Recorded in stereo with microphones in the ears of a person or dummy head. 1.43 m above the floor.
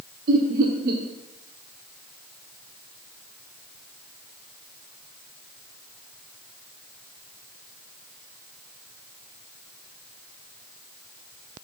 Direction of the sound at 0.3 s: 55° right (ahead or behind).